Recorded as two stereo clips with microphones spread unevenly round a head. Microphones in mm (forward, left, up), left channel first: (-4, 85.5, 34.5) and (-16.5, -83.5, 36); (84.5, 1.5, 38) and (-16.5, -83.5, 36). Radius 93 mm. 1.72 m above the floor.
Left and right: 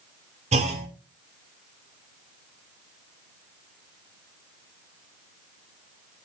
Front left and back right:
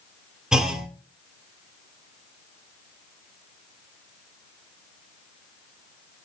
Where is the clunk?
55° right, 1.7 m.